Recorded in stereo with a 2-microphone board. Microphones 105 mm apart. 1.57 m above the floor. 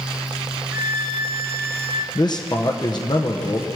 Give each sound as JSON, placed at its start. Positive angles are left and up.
{"t": 0.7, "sound": "a violin", "side_deg": -25, "distance_m": 0.9}
{"t": 2.1, "sound": "a man speaking", "side_deg": 40, "distance_m": 0.8}